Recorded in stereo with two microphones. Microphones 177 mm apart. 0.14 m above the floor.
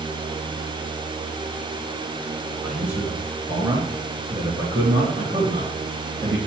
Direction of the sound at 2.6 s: 5° right (ahead or behind).